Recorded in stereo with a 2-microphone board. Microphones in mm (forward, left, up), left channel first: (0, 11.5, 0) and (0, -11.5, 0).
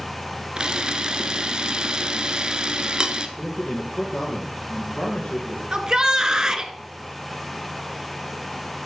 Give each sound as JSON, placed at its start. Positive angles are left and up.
{"t": 0.6, "sound": "a camera shutter", "side_deg": -35, "distance_m": 1.1}
{"t": 3.4, "sound": "a man speaking", "side_deg": 55, "distance_m": 3.5}
{"t": 5.7, "sound": "a shout", "side_deg": -25, "distance_m": 1.5}